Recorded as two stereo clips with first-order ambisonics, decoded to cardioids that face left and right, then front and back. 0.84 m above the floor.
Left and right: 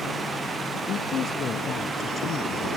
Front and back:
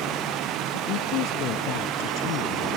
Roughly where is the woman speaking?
Ahead left.